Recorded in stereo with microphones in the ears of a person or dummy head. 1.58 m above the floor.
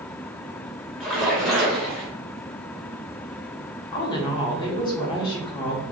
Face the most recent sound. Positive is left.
turn(degrees=20)  # may be behind; listen again after turning